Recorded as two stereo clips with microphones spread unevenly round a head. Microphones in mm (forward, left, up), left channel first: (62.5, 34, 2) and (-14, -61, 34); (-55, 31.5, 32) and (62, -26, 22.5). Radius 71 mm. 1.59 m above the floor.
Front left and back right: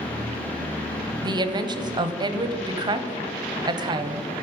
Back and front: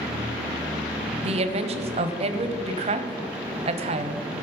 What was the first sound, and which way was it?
A woman speaking, 70° right.